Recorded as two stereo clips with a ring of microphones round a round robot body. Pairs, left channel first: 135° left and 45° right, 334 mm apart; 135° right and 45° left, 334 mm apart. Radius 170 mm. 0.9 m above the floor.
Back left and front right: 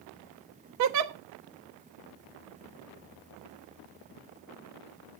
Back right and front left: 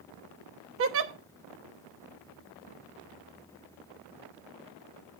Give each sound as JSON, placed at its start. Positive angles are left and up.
{"t": 0.8, "sound": "a giggle", "azimuth_deg": -5, "distance_m": 1.0}